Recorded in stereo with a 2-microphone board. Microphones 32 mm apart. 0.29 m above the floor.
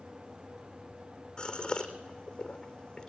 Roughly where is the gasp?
Left.